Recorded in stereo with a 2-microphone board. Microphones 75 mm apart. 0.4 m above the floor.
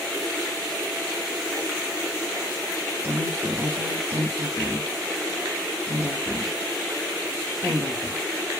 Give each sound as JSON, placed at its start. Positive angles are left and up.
{"t": 3.0, "sound": "a woman speaking", "side_deg": -30, "distance_m": 1.3}